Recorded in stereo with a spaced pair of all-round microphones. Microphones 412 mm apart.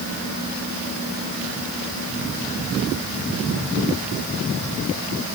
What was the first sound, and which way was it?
Only background noise.